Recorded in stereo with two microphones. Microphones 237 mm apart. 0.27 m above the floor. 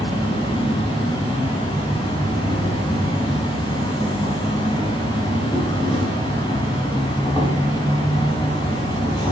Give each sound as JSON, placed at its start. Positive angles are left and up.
{"t": 0.0, "sound": "an insect", "side_deg": 20, "distance_m": 1.4}